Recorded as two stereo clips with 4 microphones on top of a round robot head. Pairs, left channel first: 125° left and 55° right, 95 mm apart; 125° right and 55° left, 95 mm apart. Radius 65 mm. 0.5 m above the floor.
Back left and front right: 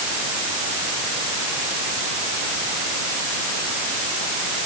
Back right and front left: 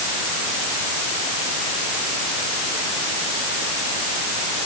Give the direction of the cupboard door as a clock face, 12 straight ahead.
No cupboard door in this recording.